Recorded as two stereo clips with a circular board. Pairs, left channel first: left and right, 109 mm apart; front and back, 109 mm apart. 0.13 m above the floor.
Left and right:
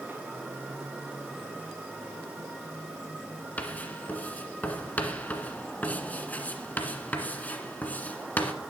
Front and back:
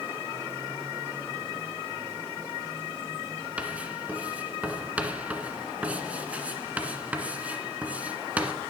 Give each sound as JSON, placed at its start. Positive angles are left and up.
{"t": 3.6, "sound": "writing", "azimuth_deg": 135, "distance_m": 1.7}